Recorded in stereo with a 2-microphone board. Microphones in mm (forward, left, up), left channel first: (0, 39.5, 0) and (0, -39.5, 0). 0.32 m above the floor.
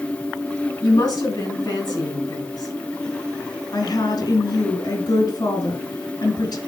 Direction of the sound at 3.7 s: 55° left (ahead or behind).